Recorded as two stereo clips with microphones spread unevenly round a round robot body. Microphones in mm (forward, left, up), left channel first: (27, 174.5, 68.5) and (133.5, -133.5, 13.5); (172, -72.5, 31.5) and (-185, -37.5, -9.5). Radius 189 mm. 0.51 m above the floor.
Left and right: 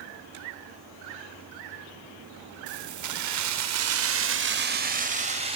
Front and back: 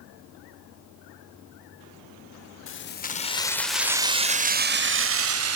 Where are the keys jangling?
60° right, 1.6 m; by 5.5 s 140° right, 2.5 m.